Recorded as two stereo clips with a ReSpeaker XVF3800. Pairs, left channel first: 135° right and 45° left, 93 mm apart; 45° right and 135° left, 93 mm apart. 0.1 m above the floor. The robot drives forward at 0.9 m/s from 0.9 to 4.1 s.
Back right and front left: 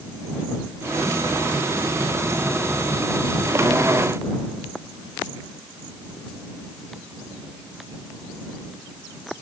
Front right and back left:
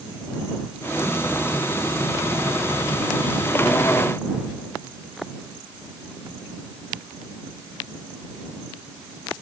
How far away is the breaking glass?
I don't hear breaking glass.